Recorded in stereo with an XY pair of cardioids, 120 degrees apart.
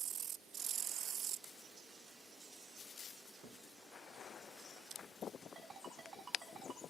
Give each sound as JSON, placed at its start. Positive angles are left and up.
{"t": 3.4, "sound": "a thud", "azimuth_deg": -70, "distance_m": 3.0}
{"t": 5.5, "sound": "a ringtone", "azimuth_deg": -40, "distance_m": 7.0}